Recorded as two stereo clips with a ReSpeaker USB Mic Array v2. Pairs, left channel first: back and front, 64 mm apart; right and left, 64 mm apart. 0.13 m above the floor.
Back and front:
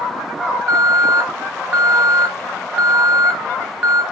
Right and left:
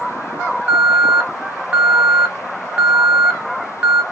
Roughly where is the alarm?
Ahead left.